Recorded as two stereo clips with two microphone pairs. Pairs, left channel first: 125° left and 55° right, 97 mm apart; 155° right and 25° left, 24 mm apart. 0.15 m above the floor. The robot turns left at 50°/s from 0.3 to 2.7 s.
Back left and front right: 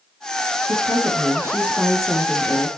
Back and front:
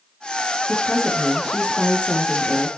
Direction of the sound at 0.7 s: 75° right.